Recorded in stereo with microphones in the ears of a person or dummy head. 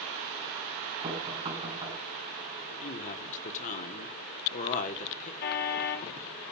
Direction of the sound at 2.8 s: 45° left (ahead or behind).